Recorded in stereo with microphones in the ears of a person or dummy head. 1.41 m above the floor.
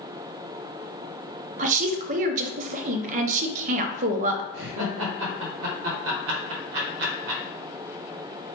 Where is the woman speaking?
35° right (ahead or behind), 0.8 m.